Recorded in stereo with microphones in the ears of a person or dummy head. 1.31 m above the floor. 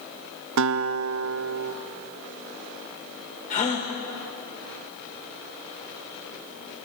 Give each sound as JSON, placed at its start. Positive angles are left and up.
{"t": 0.6, "sound": "a guitar", "side_deg": -80, "distance_m": 1.0}
{"t": 3.5, "sound": "a gasp", "side_deg": 35, "distance_m": 5.0}